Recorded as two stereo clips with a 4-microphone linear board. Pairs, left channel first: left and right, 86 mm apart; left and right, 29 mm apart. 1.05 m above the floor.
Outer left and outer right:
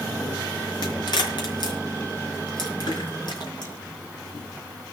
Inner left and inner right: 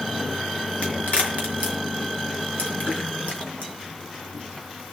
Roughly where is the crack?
Left.